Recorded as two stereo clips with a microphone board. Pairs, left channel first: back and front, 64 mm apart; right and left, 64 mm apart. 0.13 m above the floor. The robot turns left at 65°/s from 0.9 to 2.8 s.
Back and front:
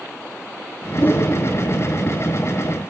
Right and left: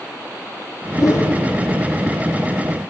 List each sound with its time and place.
1.0 s a whoosh: 120° right, 1.0 m; by 1.4 s 145° right, 1.0 m